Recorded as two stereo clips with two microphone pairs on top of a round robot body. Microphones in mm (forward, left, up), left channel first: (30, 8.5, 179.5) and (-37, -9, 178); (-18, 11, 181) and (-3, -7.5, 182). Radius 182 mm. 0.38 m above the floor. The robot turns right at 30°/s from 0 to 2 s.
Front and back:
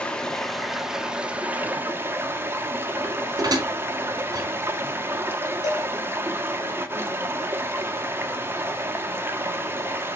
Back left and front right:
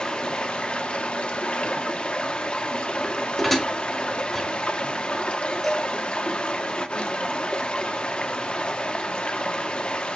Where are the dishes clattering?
150° right, 1.2 m.